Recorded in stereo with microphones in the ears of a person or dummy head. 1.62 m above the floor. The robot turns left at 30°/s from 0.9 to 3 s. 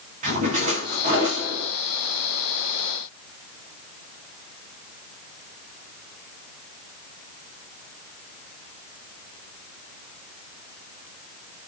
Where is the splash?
40° right (ahead or behind), 1.7 m; by 1.7 s 15° right (ahead or behind), 1.7 m.